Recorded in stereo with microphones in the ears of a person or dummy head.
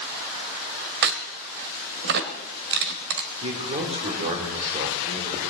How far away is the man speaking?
About 3 m.